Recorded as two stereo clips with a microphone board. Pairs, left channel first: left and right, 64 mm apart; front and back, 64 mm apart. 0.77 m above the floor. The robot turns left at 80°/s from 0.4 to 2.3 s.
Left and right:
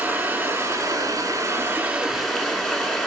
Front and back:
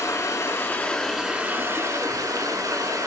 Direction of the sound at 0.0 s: 35° right.